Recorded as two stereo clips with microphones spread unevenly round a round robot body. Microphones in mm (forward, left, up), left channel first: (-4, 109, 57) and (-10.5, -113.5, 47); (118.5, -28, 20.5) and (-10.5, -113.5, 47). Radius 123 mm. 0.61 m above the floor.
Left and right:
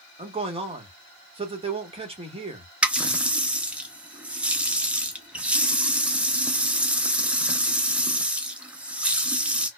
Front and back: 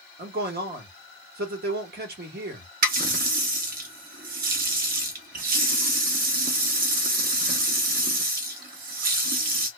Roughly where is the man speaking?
Behind right.